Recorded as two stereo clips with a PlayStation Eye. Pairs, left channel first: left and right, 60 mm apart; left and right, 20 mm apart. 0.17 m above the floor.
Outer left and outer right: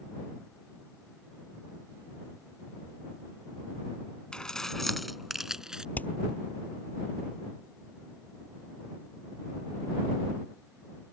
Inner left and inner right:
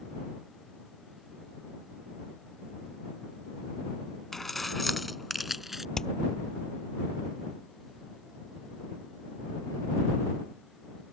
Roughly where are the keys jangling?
Centre.